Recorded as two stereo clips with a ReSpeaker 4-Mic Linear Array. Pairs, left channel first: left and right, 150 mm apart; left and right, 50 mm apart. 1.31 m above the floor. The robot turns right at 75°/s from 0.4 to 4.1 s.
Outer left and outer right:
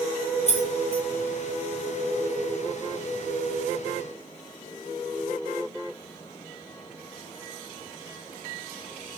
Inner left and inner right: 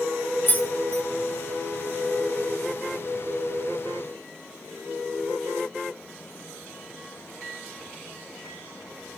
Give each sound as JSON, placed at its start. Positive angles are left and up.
{"t": 0.5, "sound": "keys jangling", "side_deg": 45, "distance_m": 0.5}